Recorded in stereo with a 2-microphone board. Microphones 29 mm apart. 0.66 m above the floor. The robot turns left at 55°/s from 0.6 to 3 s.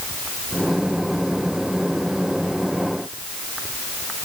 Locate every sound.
Only background noise.